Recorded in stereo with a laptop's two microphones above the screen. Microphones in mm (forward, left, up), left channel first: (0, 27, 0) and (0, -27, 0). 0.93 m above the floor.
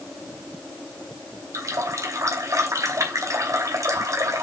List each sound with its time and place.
1.5 s a running tap: 75° right (ahead or behind), 2.5 m